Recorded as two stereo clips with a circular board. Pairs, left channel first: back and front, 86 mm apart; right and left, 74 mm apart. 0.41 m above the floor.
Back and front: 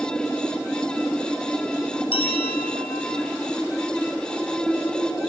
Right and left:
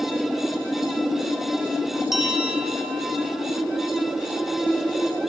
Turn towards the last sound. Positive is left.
turn(degrees=175)